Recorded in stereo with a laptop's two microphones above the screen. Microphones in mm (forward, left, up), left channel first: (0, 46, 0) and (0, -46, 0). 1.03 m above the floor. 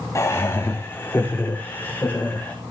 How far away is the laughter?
About 1.7 m.